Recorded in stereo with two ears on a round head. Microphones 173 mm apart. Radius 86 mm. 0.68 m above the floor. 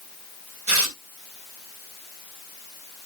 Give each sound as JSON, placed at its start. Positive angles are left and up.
{"t": 0.7, "sound": "tearing paper", "side_deg": -75, "distance_m": 3.0}